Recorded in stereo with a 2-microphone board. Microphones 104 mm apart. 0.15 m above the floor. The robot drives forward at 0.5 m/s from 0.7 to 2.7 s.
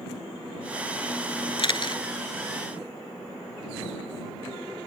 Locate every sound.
1.6 s a camera shutter: 50° left (ahead or behind); by 2.0 s 45° left (ahead or behind)